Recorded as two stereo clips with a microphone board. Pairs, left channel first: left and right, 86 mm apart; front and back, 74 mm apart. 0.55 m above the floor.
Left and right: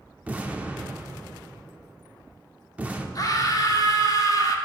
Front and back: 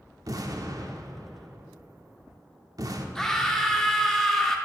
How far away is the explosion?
About 0.6 m.